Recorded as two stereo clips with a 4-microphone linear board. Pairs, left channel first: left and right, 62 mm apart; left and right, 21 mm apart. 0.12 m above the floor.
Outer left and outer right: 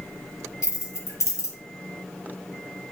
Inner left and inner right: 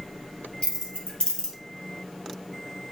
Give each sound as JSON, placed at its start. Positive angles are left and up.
{"t": 0.6, "sound": "keys jangling", "side_deg": 55, "distance_m": 2.5}